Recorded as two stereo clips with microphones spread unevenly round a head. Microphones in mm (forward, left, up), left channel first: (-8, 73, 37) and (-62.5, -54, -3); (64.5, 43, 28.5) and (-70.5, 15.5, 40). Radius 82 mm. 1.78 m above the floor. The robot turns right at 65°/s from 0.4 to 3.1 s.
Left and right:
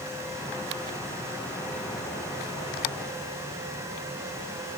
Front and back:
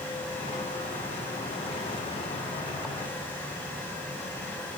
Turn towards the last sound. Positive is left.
No sound to turn to.